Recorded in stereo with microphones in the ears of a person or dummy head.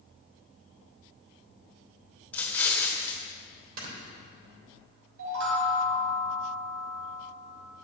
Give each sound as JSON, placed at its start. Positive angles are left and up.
{"t": 2.3, "sound": "an explosion", "side_deg": 10, "distance_m": 1.5}
{"t": 3.8, "sound": "snoring", "side_deg": -55, "distance_m": 3.0}
{"t": 5.2, "sound": "a chime", "side_deg": -85, "distance_m": 3.0}